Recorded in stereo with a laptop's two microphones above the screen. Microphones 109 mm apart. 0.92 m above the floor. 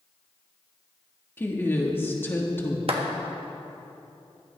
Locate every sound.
1.4 s a woman speaking: 20° left (ahead or behind), 1.3 m
2.9 s a clap: 65° right (ahead or behind), 1.4 m